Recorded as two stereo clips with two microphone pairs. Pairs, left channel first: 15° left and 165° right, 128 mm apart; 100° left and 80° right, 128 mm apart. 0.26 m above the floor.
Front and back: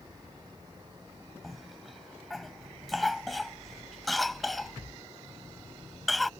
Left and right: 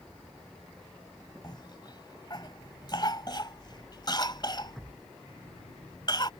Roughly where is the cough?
Left.